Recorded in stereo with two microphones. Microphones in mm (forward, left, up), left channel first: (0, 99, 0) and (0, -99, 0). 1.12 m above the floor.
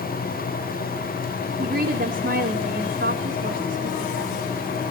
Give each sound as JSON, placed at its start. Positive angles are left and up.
{"t": 1.6, "sound": "a woman speaking", "side_deg": -70, "distance_m": 3.0}